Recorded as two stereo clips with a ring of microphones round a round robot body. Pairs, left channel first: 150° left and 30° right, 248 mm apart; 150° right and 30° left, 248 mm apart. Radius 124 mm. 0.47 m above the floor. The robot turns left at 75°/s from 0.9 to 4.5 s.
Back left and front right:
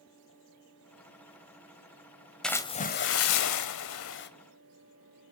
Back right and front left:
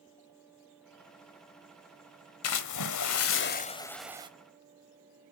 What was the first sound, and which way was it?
A splash, 120° right.